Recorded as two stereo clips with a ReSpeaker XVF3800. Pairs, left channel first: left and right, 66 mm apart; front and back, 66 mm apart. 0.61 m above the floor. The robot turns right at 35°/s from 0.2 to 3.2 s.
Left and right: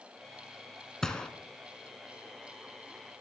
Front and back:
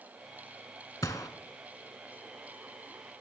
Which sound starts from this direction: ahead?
A gunshot, at 1.0 s.